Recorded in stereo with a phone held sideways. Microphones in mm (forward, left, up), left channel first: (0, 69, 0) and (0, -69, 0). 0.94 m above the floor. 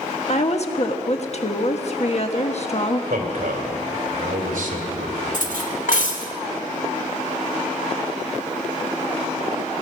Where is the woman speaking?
50° left (ahead or behind), 1.3 m.